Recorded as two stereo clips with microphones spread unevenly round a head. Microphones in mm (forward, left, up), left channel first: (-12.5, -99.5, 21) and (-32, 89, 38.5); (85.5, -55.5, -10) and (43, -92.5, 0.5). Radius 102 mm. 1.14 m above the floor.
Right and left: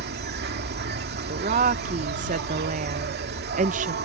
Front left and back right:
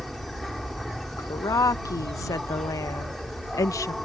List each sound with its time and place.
0.0 s an insect: 130° left
1.2 s a woman speaking: 40° left